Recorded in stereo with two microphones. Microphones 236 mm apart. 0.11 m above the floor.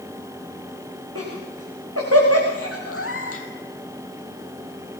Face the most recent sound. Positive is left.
turn(degrees=70)  # may be behind; listen again after turning